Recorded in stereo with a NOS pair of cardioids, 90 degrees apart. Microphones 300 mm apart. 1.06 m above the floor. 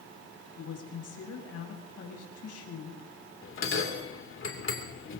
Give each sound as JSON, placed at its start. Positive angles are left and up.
{"t": 0.6, "sound": "a woman speaking", "azimuth_deg": 55, "distance_m": 6.5}
{"t": 3.4, "sound": "a bell", "azimuth_deg": 45, "distance_m": 3.0}